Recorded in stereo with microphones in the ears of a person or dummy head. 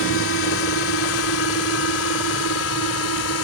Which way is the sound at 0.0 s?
70° left (ahead or behind).